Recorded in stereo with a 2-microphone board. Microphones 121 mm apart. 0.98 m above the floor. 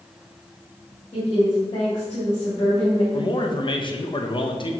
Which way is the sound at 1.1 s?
50° left (ahead or behind).